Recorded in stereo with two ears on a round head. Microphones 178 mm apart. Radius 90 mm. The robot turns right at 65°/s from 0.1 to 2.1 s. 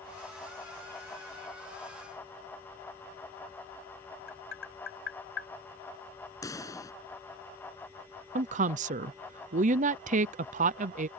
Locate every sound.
4.3 s tapping: 65° left (ahead or behind)
6.4 s a pop: 15° left (ahead or behind)
8.3 s a woman speaking: 35° right (ahead or behind)